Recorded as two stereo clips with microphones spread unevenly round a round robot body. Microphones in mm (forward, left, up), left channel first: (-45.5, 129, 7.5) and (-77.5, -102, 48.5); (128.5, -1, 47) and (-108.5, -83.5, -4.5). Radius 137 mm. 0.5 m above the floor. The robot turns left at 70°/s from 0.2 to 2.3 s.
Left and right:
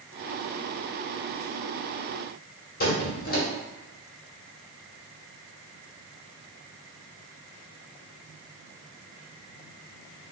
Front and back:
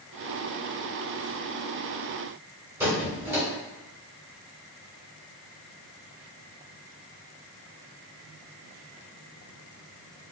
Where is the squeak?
125° left, 1.5 m.